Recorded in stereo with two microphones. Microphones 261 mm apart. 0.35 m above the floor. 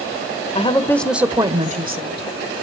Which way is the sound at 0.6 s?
25° left (ahead or behind).